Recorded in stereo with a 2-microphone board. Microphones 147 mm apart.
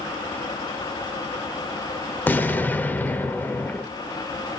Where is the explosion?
15° left (ahead or behind), 0.6 m.